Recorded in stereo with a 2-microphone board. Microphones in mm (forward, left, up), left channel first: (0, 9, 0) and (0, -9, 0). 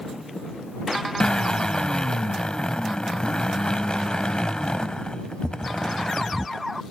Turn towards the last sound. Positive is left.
turn(degrees=55)  # may be behind; listen again after turning